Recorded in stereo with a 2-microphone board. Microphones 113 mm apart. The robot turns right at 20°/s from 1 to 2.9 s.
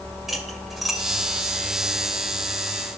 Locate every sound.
0.3 s cutlery clinking: 5° right (ahead or behind), 2.5 m; by 1.0 s centre (ahead or behind), 2.5 m